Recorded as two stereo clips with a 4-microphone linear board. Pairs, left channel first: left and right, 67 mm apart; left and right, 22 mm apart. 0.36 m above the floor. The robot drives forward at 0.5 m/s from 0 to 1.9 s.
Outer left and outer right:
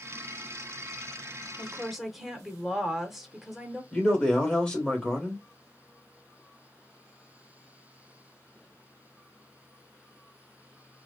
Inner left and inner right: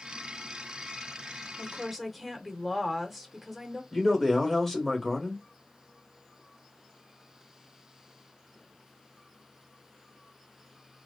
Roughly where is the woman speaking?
Centre.